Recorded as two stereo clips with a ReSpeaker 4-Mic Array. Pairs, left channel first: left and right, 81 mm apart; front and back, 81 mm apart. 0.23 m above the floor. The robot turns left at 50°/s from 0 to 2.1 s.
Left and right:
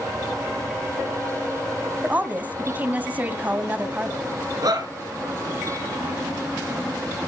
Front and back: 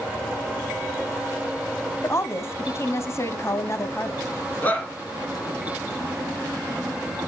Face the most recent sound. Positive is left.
turn(degrees=-65)